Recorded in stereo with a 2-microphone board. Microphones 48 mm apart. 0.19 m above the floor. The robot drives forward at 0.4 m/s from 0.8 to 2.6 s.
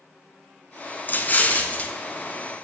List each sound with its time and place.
1.1 s an explosion: 40° left (ahead or behind), 0.7 m; by 1.9 s 30° left (ahead or behind), 0.9 m